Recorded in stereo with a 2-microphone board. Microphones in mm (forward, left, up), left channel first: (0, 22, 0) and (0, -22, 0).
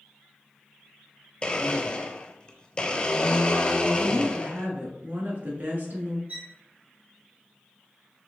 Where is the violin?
40° right (ahead or behind), 1.9 m.